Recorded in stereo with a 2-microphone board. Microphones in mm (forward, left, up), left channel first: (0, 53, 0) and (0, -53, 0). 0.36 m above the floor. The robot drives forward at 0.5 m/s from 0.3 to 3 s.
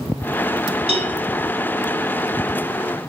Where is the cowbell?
85° right, 0.5 m; by 1.1 s 70° right (ahead or behind), 0.5 m.